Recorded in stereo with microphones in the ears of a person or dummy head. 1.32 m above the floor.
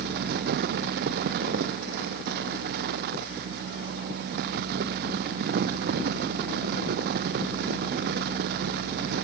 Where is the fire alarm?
I don't hear a fire alarm.